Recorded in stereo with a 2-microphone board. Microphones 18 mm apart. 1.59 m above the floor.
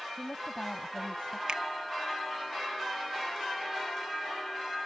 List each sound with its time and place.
0.2 s a woman speaking: 75° left (ahead or behind)
1.5 s a finger snap: 60° right (ahead or behind)